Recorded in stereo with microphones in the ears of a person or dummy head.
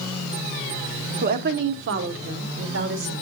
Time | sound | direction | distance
1.2 | a woman speaking | 50° right (ahead or behind) | 0.8 m